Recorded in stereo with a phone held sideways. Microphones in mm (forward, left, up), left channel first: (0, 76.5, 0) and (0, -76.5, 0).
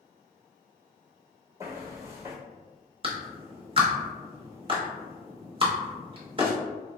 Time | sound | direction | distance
1.6 | footsteps | 20° right (ahead or behind) | 1.3 m
3.0 | a clap | 35° right (ahead or behind) | 0.8 m